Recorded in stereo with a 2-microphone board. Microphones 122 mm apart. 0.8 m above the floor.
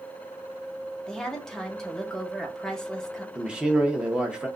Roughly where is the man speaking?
Centre.